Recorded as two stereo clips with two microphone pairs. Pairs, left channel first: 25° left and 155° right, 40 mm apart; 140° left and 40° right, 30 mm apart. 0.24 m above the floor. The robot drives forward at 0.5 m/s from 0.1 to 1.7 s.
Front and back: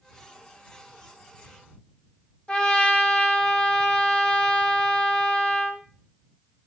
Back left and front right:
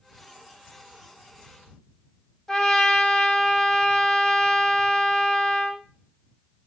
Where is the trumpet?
75° left, 0.6 m.